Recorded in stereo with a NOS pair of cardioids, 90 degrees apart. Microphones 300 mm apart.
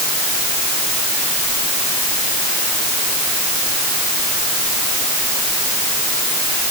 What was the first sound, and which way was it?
Only background noise.